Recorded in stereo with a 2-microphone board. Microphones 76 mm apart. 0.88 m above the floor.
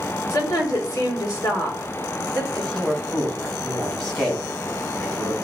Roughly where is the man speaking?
Centre.